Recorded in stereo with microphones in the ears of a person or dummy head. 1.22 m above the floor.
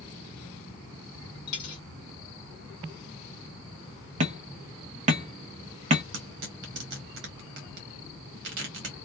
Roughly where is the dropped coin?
Left.